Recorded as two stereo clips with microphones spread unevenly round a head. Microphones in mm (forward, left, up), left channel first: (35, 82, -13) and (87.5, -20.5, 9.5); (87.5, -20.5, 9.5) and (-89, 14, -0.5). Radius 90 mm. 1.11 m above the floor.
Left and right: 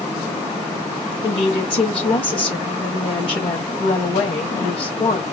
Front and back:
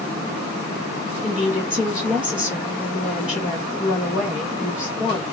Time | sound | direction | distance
1.2 | a woman speaking | 85° left | 1.5 m